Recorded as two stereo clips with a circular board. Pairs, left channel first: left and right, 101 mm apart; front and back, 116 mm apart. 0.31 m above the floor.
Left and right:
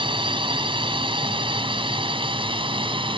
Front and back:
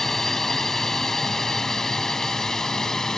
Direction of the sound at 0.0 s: 85° right.